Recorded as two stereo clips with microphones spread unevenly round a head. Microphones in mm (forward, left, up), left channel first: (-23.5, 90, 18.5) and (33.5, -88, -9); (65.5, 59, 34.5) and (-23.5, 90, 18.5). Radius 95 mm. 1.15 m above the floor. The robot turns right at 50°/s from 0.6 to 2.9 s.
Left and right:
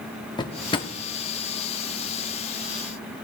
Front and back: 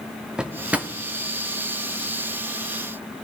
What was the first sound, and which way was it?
A drawer, 70° left.